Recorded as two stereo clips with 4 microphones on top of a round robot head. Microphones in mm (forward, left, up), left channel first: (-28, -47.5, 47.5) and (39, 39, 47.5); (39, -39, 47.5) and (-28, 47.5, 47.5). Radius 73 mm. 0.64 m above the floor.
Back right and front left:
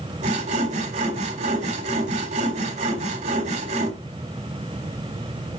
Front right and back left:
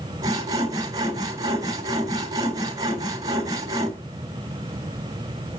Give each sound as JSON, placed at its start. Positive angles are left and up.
{"t": 0.2, "sound": "sawing", "azimuth_deg": 70, "distance_m": 3.5}